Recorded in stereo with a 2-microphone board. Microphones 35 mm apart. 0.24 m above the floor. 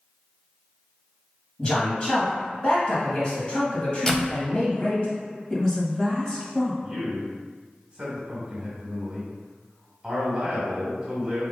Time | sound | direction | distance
1.6 | a man speaking | 30° left (ahead or behind) | 1.5 m
4.1 | a door slam | 15° left (ahead or behind) | 0.6 m
5.5 | a woman speaking | 15° left (ahead or behind) | 1.1 m
6.8 | a man speaking | 25° right (ahead or behind) | 1.9 m